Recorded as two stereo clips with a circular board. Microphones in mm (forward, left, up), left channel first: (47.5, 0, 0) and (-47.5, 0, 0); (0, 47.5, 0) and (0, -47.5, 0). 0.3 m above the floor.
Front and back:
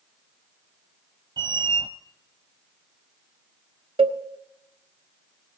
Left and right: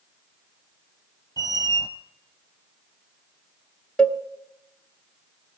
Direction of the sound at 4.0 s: 170° left.